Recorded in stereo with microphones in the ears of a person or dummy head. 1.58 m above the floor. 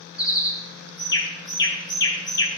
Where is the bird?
20° left (ahead or behind), 2.5 m.